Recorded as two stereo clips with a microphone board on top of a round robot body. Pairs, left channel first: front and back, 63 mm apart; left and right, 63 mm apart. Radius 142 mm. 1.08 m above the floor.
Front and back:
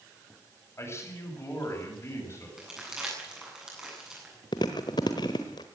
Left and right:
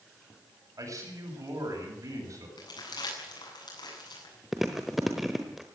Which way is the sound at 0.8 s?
50° right.